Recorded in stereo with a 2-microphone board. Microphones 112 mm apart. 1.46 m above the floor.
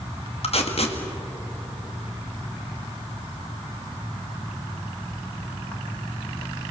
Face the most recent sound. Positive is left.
turn(degrees=65)  # may be behind; listen again after turning